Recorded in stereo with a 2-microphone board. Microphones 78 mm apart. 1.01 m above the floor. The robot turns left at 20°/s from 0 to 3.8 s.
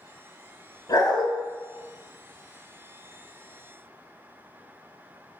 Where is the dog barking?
60° left (ahead or behind), 1.6 m; by 1.3 s 65° left (ahead or behind), 1.6 m.